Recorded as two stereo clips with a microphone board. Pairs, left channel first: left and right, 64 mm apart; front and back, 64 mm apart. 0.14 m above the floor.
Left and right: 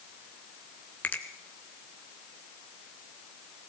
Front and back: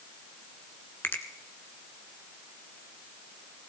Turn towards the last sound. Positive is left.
turn(degrees=40)